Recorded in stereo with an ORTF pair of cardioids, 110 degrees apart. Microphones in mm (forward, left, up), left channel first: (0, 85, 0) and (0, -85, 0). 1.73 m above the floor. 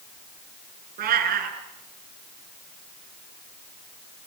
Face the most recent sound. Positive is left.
turn(degrees=-65)